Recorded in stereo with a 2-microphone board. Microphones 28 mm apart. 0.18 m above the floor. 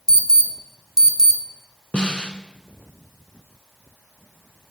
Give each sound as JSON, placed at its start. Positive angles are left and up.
{"t": 0.1, "sound": "an alarm", "side_deg": 30, "distance_m": 1.4}
{"t": 1.9, "sound": "a snare drum", "side_deg": 45, "distance_m": 1.0}